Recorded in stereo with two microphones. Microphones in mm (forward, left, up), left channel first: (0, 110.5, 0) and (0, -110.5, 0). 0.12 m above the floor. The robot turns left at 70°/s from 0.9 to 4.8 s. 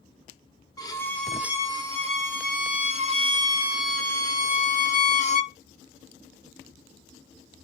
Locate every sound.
0.8 s a violin: 30° left, 1.1 m; by 5.6 s 115° left, 1.1 m